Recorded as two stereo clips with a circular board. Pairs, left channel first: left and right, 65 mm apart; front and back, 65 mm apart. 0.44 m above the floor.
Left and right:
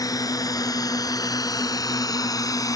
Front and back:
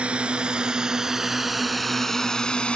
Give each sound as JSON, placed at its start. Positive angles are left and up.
{"t": 0.0, "sound": "a drone", "azimuth_deg": 105}